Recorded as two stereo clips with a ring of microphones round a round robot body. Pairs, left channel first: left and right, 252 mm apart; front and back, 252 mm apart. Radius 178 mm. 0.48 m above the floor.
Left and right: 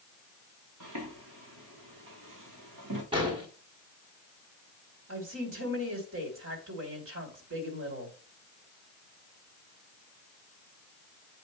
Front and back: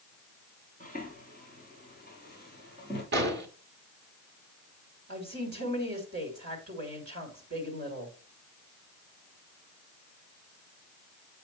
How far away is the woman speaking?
About 2.5 m.